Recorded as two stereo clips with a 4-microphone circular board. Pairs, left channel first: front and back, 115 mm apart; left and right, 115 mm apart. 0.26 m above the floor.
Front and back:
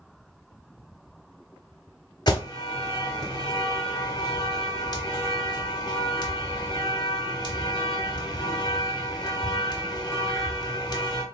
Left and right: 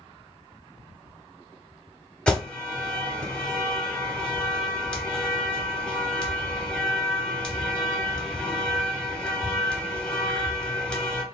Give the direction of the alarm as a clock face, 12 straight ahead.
12 o'clock.